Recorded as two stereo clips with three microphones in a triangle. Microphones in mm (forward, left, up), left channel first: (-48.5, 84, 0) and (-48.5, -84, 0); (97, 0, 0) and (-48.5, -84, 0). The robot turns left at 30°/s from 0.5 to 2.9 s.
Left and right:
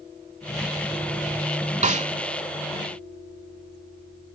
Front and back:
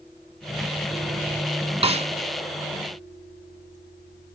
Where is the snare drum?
110° right, 0.6 m; by 2.1 s 120° right, 0.6 m.